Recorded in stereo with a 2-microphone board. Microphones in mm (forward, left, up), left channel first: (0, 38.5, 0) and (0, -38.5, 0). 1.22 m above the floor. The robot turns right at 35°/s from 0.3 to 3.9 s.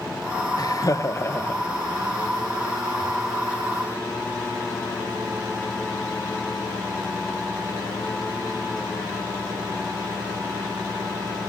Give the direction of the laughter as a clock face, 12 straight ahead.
8 o'clock.